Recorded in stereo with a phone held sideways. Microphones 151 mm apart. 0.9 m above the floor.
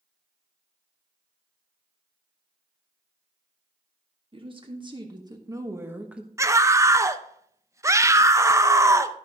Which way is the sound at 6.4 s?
20° right (ahead or behind).